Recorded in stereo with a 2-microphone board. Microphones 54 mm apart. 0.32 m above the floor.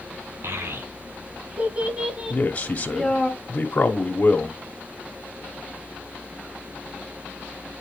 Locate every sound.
0.4 s a child speaking: 55° right (ahead or behind), 1.6 m; by 3.3 s 15° left (ahead or behind), 1.8 m
2.3 s a man speaking: 30° left (ahead or behind), 1.4 m